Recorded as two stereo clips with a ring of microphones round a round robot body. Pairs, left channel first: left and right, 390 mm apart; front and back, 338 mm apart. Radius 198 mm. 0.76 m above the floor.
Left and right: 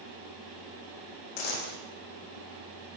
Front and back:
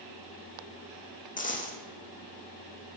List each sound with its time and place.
1.4 s a dropped coin: 65° left, 5.5 m